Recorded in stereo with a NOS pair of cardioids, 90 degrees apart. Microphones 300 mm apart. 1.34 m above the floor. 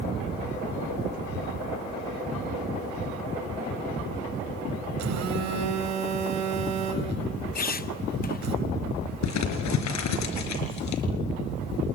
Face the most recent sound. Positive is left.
turn(degrees=70)